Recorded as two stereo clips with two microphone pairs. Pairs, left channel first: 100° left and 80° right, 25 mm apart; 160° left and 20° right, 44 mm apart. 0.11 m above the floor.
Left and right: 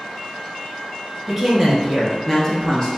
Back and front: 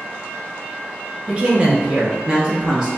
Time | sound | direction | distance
1.3 | a woman speaking | straight ahead | 1.3 m